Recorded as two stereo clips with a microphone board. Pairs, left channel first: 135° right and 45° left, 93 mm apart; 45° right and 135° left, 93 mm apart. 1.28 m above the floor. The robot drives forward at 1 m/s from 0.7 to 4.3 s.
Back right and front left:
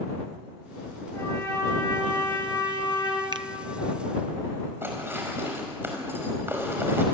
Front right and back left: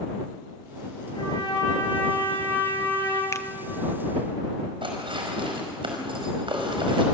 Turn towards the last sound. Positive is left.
turn(degrees=110)